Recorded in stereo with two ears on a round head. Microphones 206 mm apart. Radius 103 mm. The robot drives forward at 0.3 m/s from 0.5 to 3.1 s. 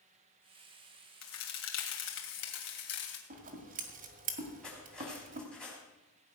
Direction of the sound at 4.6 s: 5° left (ahead or behind).